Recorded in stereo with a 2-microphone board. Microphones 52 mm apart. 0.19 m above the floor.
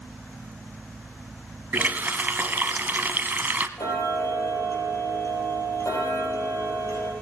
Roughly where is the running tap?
Right.